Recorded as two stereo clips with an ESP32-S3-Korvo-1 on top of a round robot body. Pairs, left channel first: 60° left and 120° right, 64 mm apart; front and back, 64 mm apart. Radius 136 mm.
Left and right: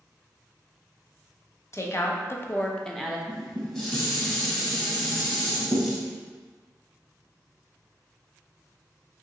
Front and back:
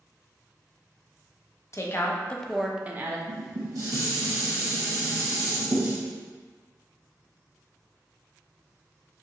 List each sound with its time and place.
1.7 s a woman speaking: 30° left, 0.8 m; by 3.2 s 150° left, 0.7 m
3.3 s dishes clattering: 140° left, 0.7 m